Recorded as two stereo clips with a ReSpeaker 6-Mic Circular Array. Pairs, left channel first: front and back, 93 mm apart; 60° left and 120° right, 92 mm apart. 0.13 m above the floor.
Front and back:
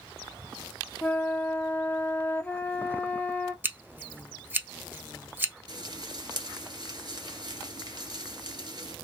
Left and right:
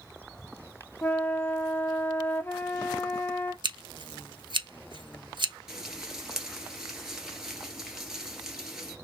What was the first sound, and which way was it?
A flute, 40° left.